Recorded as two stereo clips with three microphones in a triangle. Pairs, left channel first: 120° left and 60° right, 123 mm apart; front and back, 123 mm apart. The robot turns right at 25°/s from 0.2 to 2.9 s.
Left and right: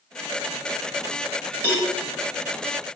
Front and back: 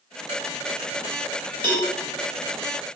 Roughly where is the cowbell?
Behind right.